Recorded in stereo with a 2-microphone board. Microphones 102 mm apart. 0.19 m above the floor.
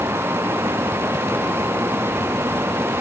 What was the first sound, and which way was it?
Only background noise.